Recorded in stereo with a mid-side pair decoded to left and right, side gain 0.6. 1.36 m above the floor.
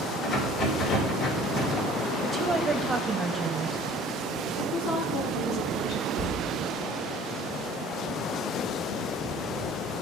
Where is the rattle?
55° left, 3 m.